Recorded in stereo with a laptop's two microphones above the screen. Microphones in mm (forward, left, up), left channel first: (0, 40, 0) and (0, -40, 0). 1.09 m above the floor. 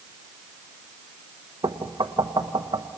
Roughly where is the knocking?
Right.